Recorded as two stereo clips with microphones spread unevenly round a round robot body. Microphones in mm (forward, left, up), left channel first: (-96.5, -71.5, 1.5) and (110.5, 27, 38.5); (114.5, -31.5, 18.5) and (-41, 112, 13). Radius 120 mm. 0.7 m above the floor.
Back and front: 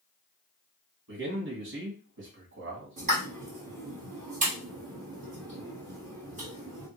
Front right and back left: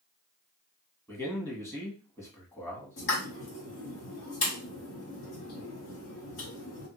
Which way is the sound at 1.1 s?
30° left.